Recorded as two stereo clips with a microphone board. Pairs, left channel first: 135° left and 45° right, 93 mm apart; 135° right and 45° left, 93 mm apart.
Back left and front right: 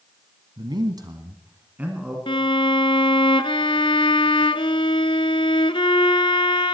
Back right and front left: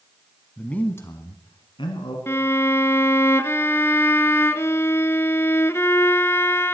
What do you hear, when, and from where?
0.6 s a man speaking: 55° right, 1.8 m; by 2.2 s 125° right, 2.5 m
2.3 s a violin: 160° left, 0.5 m